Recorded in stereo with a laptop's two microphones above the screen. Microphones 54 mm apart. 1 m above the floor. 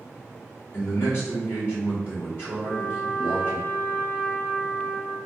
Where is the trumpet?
60° left (ahead or behind), 1.6 m.